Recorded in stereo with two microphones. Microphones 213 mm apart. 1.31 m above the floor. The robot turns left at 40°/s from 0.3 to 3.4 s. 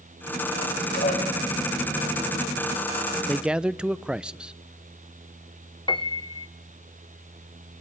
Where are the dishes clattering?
45° left (ahead or behind), 4.5 m; by 1.3 s 30° left (ahead or behind), 4.5 m.